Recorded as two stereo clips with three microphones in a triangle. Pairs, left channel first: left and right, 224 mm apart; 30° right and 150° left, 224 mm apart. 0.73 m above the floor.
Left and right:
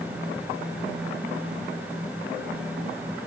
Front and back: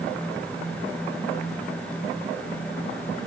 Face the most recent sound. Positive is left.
No sound to turn to.